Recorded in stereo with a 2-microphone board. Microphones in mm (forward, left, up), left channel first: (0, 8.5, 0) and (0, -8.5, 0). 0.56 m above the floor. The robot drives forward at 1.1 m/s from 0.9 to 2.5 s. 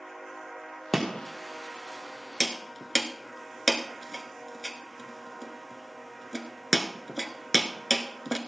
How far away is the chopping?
About 3 m.